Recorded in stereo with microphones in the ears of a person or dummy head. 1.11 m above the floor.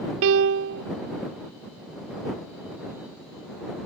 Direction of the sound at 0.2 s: 75° right (ahead or behind).